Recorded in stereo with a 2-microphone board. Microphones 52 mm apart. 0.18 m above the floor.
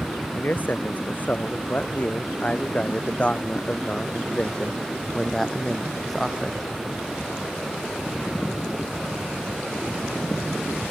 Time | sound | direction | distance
0.3 | a man speaking | 40° left (ahead or behind) | ?